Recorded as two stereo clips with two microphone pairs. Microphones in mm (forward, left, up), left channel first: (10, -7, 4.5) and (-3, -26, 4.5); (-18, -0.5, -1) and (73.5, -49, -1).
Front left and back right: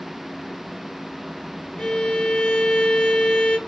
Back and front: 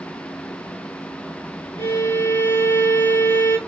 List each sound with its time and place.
1.8 s a violin: 100° left, 0.9 m